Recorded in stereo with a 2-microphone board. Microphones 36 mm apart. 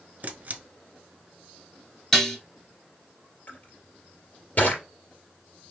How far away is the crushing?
About 2.5 m.